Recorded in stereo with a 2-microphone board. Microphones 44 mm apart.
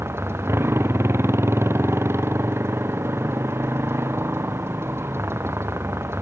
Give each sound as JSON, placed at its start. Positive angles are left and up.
{"t": 0.0, "sound": "a motorcycle", "side_deg": -70}